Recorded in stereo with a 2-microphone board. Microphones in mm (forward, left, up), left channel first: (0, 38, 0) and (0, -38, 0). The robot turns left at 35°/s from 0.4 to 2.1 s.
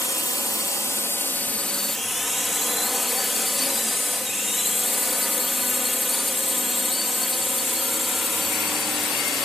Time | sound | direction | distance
0.0 | a drone | 60° left | ?